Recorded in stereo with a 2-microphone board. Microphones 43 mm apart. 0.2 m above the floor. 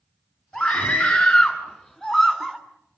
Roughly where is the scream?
Left.